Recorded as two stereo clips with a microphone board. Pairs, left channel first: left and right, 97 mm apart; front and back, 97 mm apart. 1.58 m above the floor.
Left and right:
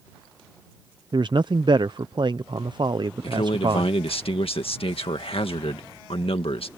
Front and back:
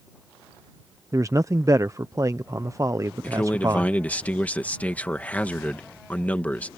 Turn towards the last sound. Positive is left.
turn(degrees=75)